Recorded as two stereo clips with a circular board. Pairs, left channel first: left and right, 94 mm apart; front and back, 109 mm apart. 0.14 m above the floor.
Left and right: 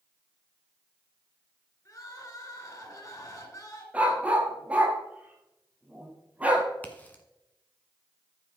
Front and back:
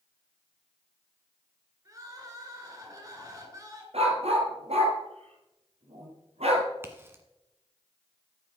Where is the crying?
130° left, 2.5 m.